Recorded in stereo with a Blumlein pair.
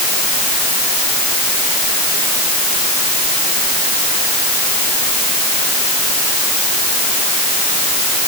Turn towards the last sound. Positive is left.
No sound to turn to.